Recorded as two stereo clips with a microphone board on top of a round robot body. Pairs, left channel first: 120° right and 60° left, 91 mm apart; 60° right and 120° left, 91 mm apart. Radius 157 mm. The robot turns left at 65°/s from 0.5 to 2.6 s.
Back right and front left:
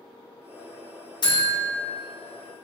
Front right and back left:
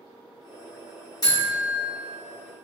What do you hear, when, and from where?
1.2 s a buzzer: 100° right, 1.7 m; by 1.8 s 135° right, 1.7 m